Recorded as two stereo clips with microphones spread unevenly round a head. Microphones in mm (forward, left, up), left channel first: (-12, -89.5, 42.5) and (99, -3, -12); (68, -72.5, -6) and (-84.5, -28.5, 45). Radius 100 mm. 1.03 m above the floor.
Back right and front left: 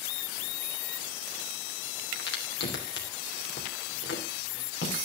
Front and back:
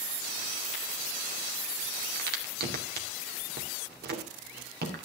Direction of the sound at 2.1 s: 175° right.